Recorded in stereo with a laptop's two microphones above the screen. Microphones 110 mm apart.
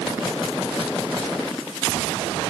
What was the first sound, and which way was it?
Only background noise.